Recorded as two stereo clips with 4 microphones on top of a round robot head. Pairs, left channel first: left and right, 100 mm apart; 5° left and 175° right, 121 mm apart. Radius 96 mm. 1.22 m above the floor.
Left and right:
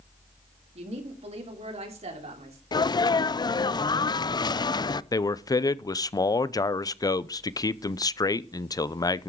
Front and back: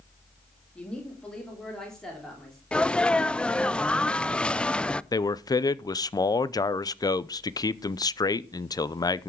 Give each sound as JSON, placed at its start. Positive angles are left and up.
{"t": 0.8, "sound": "a woman speaking", "azimuth_deg": -80, "distance_m": 2.5}
{"t": 2.7, "sound": "a sneeze", "azimuth_deg": 80, "distance_m": 0.5}
{"t": 5.1, "sound": "a man speaking", "azimuth_deg": 50, "distance_m": 0.7}